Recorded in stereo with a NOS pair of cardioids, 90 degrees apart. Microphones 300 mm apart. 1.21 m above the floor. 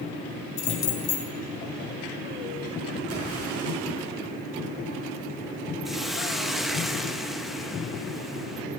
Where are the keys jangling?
60° left, 2 m.